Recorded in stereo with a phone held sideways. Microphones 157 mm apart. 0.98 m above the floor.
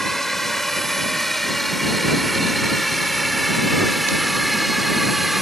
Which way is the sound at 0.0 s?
Centre (ahead or behind).